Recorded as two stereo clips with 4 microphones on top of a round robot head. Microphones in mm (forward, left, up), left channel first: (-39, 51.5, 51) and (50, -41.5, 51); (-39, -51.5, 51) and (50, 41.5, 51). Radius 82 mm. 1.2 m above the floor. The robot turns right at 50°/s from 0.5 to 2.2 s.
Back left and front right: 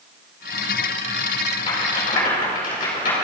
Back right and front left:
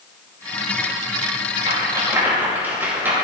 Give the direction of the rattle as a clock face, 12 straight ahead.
9 o'clock.